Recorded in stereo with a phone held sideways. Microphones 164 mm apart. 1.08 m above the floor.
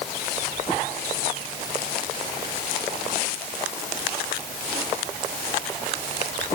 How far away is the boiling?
I don't hear boiling.